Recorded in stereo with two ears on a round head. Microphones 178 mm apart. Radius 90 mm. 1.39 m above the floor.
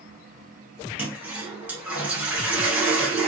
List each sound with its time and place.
1.0 s a toilet flushing: 10° right (ahead or behind), 1.0 m